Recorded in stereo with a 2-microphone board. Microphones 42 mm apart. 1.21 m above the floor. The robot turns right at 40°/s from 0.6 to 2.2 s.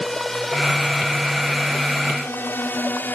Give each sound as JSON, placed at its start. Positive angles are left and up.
{"t": 0.0, "sound": "a drone", "side_deg": 10}